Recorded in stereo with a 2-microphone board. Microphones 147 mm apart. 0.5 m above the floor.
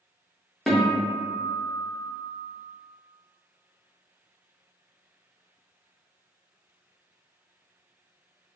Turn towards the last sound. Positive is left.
turn(degrees=0)  # may be behind; listen again after turning